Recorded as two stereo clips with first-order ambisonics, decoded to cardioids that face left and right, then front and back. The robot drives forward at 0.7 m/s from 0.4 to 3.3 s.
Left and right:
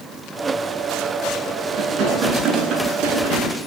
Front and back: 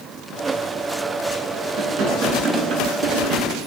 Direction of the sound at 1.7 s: 145° right.